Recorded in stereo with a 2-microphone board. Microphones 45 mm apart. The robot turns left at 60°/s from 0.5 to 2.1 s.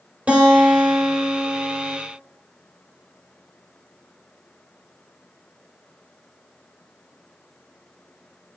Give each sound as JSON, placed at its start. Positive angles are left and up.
{"t": 0.3, "sound": "a guitar", "azimuth_deg": -135, "distance_m": 3.5}